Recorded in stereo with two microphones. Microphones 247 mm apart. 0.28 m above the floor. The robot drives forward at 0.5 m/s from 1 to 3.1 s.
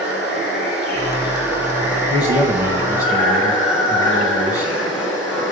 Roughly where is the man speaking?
Centre.